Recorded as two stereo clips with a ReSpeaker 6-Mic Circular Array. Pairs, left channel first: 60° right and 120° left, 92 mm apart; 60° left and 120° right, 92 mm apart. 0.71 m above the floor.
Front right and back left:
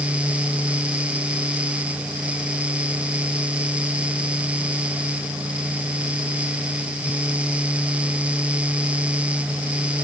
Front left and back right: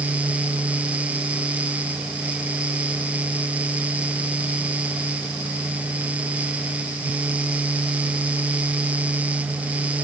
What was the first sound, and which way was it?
Only background noise.